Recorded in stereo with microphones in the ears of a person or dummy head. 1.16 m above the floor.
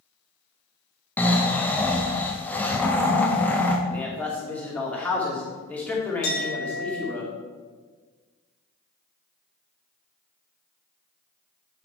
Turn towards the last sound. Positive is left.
turn(degrees=80)